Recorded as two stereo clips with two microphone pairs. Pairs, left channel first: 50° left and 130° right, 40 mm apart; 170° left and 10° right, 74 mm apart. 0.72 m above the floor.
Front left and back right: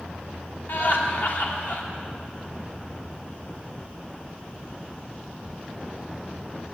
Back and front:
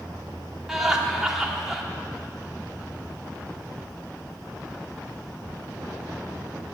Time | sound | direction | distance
0.7 | laughter | 70° left | 1.8 m